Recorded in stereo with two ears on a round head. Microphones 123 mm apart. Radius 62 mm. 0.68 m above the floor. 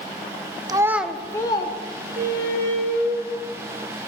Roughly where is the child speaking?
Right.